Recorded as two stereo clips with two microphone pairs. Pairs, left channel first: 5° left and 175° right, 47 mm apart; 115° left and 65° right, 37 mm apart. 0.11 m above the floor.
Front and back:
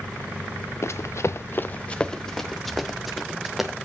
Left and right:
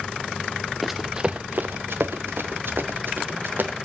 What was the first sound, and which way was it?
Running footsteps, 25° left.